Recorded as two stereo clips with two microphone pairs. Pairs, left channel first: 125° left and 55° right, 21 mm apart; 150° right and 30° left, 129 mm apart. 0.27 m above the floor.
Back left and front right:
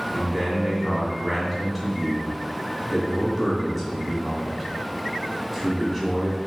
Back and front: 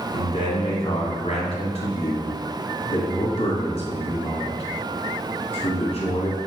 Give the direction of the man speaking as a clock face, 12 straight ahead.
5 o'clock.